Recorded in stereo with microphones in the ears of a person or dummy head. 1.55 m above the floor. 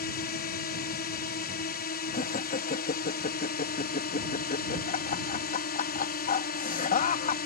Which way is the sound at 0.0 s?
45° left (ahead or behind).